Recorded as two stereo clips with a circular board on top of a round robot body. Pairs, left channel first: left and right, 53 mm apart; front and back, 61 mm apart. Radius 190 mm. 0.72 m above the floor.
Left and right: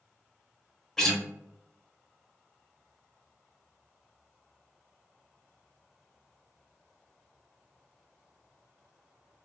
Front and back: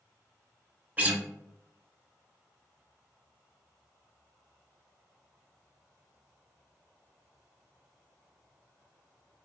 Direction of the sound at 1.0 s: 160° left.